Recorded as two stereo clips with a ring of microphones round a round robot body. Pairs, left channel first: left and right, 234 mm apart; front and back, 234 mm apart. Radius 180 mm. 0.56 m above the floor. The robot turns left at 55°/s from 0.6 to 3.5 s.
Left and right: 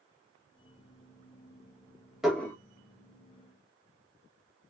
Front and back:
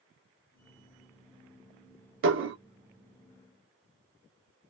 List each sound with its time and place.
2.2 s dishes clattering: 175° right, 0.8 m; by 2.6 s 165° left, 0.8 m